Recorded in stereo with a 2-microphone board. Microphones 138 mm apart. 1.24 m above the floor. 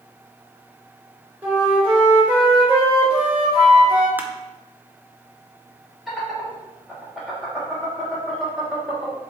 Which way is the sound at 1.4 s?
15° right (ahead or behind).